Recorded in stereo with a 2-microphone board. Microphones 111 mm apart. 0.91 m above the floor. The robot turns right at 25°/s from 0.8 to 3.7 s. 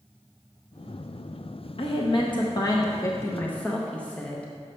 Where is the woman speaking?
120° left, 0.7 m; by 4.5 s 170° left, 0.7 m.